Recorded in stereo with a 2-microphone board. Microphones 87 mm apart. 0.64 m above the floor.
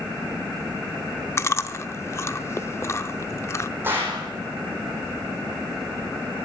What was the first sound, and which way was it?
Chewing, 30° left (ahead or behind).